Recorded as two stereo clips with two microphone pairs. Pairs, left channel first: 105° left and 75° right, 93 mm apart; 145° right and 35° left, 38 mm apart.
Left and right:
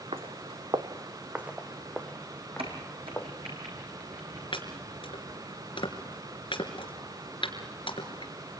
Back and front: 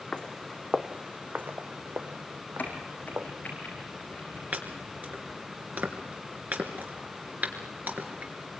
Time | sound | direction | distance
0.1 | footsteps | 80° right | 1.6 m
2.6 | a crack | 95° right | 4.5 m
4.5 | chopping | 75° left | 3 m